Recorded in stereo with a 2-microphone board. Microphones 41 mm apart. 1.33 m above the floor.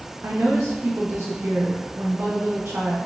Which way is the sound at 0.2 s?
80° right.